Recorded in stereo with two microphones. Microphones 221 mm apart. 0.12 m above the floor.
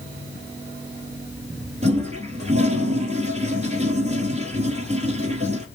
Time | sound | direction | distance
1.8 | a toilet flushing | 30° right (ahead or behind) | 1.3 m